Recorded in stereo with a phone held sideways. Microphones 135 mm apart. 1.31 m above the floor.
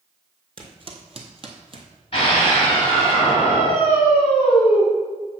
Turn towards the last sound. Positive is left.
turn(degrees=40)  # may be behind; listen again after turning